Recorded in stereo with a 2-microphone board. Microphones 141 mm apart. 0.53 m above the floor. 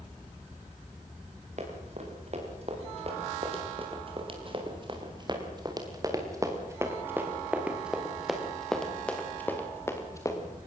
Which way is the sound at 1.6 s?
55° right (ahead or behind).